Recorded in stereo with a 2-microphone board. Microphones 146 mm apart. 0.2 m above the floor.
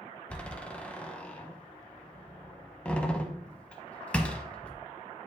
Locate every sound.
0.3 s a door slam: 10° left (ahead or behind), 0.7 m